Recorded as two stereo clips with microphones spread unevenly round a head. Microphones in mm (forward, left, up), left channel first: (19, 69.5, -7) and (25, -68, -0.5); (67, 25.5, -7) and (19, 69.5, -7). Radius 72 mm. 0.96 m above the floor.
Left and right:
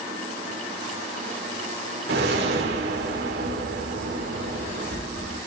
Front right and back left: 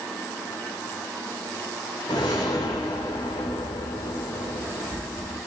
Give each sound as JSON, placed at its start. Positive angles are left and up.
{"t": 2.1, "sound": "a whoosh", "azimuth_deg": -90, "distance_m": 2.0}